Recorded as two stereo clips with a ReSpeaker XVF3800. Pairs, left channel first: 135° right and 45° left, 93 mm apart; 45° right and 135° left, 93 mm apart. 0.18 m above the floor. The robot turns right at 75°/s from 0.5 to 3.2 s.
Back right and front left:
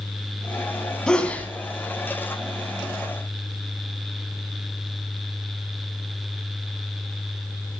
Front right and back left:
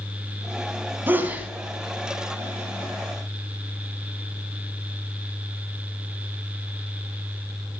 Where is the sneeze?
155° left, 1.1 m; by 1.5 s 170° right, 1.1 m.